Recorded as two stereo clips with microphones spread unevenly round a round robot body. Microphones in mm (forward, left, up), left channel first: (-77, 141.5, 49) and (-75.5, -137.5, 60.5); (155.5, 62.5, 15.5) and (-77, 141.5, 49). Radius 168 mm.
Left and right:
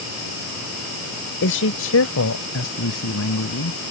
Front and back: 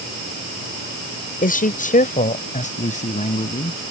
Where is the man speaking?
35° left; by 3.8 s 45° left.